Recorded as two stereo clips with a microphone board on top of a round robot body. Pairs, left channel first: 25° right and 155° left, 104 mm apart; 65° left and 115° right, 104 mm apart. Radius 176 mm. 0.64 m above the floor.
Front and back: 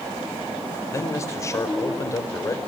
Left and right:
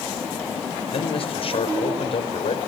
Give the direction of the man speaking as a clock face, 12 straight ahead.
11 o'clock.